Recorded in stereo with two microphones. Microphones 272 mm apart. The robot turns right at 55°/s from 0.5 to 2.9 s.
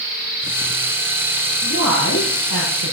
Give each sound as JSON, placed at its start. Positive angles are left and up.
{"t": 1.6, "sound": "a woman speaking", "azimuth_deg": 45, "distance_m": 7.5}